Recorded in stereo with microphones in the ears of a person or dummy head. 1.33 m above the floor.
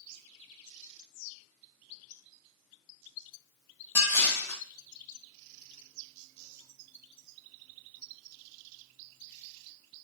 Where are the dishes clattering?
15° left (ahead or behind), 0.7 m.